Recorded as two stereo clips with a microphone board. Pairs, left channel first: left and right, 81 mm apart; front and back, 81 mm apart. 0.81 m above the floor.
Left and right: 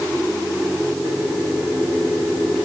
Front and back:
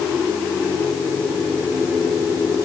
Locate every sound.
Only background noise.